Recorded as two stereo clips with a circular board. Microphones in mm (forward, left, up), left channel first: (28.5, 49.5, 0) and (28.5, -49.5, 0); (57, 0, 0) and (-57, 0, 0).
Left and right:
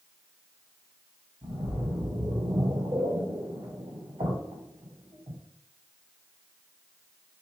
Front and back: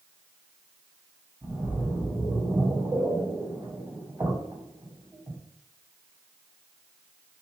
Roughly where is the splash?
Behind right.